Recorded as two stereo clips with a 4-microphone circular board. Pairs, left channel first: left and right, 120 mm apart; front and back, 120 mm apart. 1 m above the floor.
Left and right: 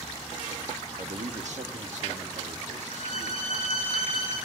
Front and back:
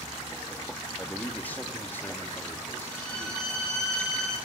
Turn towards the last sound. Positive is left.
turn(degrees=-85)